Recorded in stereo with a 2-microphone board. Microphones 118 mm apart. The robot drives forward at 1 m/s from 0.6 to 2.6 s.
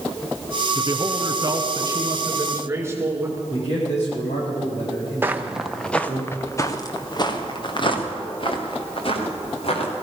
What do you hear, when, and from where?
0.8 s a man speaking: 40° right (ahead or behind), 1.4 m; by 3.4 s 25° right (ahead or behind), 2 m
3.5 s a man speaking: 65° left (ahead or behind), 7.5 m
5.2 s footsteps: 20° right (ahead or behind), 1.1 m; by 9.9 s 55° left (ahead or behind), 4 m